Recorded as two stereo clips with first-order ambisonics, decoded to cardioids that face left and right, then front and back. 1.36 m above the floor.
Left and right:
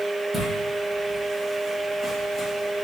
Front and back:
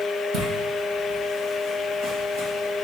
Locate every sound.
0.3 s footsteps: 165° right, 2 m; by 2.9 s 165° left, 3.5 m